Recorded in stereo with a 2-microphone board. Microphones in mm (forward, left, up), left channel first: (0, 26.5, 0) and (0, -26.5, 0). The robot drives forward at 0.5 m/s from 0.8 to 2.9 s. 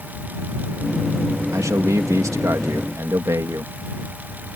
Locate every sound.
1.5 s a man speaking: 80° right